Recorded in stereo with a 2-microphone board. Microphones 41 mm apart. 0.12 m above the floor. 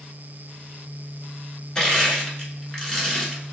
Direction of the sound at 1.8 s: 20° left (ahead or behind).